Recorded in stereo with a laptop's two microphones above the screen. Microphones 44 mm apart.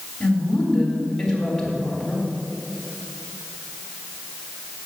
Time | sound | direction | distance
0.2 | a woman speaking | 5° left (ahead or behind) | 3.5 m